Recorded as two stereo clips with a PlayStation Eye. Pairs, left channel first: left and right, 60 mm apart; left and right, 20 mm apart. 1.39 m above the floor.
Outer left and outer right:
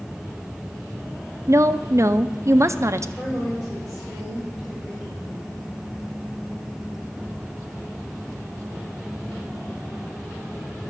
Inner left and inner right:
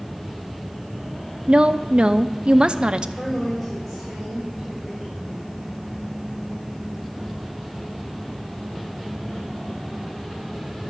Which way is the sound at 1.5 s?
55° right (ahead or behind).